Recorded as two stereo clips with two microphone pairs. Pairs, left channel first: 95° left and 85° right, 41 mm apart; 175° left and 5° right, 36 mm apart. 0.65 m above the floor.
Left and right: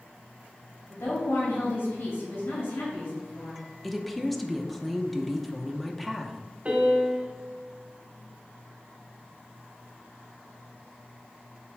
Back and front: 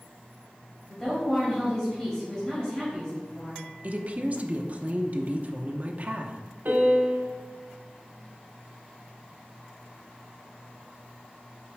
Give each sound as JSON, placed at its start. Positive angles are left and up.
{"t": 0.9, "sound": "a woman speaking", "azimuth_deg": 95, "distance_m": 3.0}
{"t": 3.8, "sound": "a woman speaking", "azimuth_deg": 5, "distance_m": 0.8}
{"t": 6.7, "sound": "a piano", "azimuth_deg": -30, "distance_m": 1.4}